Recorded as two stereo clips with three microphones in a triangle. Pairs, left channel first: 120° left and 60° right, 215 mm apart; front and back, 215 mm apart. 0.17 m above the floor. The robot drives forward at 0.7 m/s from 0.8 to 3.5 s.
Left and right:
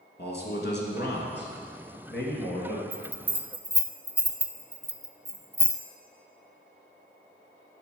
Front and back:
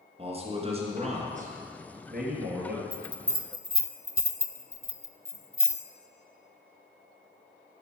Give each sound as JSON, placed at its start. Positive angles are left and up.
{"t": 0.2, "sound": "a man speaking", "azimuth_deg": 125, "distance_m": 2.0}
{"t": 2.9, "sound": "a bell", "azimuth_deg": -105, "distance_m": 0.6}